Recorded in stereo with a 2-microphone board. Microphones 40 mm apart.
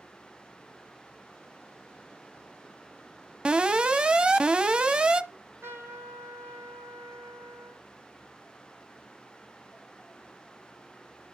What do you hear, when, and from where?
3.5 s an alarm: 25° right (ahead or behind), 0.9 m
5.3 s a trumpet: 85° right, 5 m